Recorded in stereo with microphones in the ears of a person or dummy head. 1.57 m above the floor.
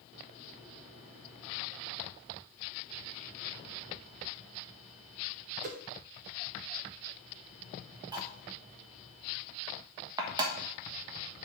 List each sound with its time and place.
5.6 s a whoosh: 50° right (ahead or behind), 0.8 m
8.1 s cutlery clinking: 25° right (ahead or behind), 1.1 m